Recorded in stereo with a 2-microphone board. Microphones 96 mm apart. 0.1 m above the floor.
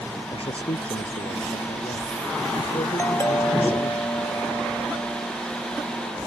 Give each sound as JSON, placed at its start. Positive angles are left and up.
{"t": 0.3, "sound": "a man speaking", "side_deg": 75}
{"t": 3.0, "sound": "a doorbell", "side_deg": 30}